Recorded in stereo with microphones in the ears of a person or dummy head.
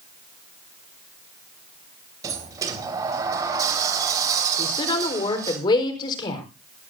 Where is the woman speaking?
25° left (ahead or behind), 4.5 m.